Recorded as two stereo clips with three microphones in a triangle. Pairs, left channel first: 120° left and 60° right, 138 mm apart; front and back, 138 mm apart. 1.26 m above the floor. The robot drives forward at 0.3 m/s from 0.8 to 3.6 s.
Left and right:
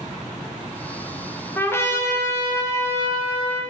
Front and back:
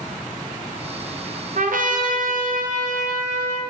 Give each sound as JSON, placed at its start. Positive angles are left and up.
{"t": 1.6, "sound": "a trumpet", "azimuth_deg": -165, "distance_m": 0.7}